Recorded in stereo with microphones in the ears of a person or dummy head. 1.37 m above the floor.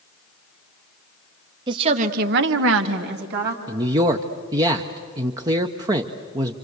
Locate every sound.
1.7 s a woman speaking: 30° right (ahead or behind), 1.6 m; by 3.6 s 55° right (ahead or behind), 2 m
3.7 s a man speaking: 20° right (ahead or behind), 0.7 m